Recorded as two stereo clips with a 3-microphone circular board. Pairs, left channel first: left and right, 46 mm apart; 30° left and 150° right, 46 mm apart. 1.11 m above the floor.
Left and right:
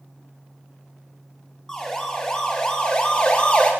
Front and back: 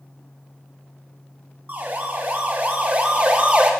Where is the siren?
170° left, 3.5 m; by 3.7 s 155° left, 3 m.